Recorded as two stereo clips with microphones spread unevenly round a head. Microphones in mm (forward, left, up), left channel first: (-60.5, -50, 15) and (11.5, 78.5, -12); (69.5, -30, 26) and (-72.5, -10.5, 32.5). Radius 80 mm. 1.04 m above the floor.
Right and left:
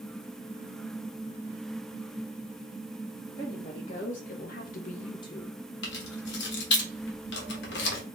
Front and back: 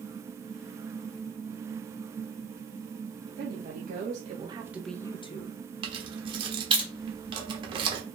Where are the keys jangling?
130° right, 1.0 m.